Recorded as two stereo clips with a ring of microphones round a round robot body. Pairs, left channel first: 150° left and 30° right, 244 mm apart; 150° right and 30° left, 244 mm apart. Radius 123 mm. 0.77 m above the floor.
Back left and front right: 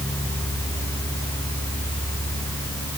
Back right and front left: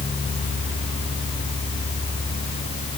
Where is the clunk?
No clunk in this recording.